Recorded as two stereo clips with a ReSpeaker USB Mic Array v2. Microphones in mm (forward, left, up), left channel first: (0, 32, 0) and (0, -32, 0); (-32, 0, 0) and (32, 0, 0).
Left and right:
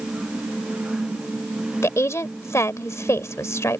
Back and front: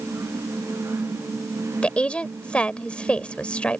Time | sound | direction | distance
1.8 | a woman speaking | 115° left | ?